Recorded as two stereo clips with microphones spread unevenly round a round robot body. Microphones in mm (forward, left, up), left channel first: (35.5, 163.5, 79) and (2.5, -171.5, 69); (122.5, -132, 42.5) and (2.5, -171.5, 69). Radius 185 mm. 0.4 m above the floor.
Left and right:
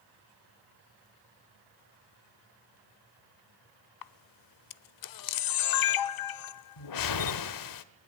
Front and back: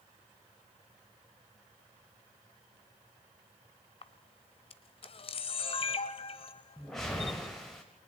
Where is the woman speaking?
No woman speaking in this recording.